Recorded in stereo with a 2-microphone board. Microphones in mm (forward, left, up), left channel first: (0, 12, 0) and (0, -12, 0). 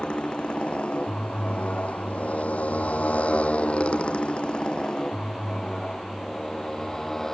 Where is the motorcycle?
45° left (ahead or behind); by 7.3 s 20° left (ahead or behind).